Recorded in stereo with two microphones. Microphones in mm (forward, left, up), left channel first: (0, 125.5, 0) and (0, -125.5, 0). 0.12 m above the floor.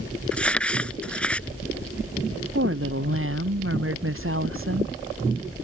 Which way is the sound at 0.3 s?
5° left (ahead or behind).